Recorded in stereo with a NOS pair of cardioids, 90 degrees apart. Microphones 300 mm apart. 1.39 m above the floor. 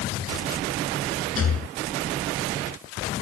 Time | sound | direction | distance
1.4 | a rattle | 45° left | ?